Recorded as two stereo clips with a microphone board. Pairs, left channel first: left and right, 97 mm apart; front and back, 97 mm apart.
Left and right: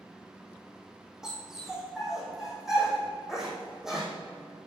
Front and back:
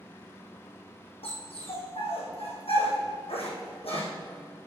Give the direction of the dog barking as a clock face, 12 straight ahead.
12 o'clock.